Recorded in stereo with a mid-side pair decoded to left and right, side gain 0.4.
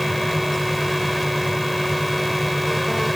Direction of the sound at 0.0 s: Straight ahead.